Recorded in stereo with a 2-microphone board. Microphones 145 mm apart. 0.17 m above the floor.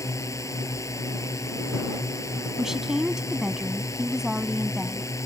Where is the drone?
20° left (ahead or behind).